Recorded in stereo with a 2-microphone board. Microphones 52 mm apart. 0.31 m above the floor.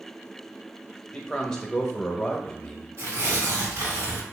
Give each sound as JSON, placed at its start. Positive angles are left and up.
{"t": 1.1, "sound": "a man speaking", "side_deg": 15, "distance_m": 1.0}
{"t": 3.0, "sound": "tearing paper", "side_deg": -55, "distance_m": 2.5}